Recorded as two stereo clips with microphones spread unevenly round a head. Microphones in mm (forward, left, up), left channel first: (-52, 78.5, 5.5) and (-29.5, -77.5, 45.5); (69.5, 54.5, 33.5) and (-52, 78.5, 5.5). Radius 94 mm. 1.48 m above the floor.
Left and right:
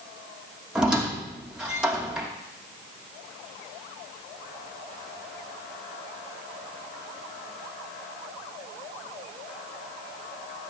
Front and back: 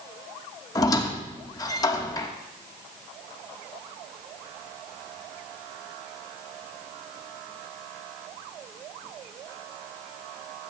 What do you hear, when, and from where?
0.8 s a squeak: 20° right, 1.1 m